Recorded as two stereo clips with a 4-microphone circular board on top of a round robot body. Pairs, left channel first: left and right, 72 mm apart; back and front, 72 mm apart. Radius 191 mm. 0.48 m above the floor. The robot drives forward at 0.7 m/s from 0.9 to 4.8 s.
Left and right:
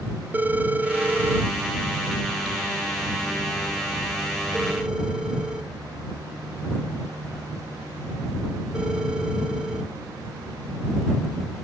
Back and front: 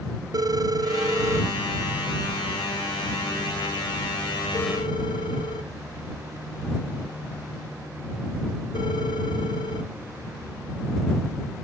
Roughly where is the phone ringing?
Ahead right.